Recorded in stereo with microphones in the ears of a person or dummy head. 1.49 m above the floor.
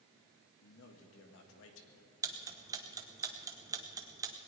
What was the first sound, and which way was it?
A man speaking, 75° left (ahead or behind).